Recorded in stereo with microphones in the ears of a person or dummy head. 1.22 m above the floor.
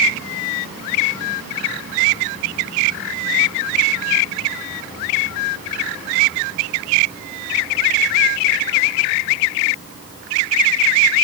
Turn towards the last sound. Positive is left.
No sound to turn to.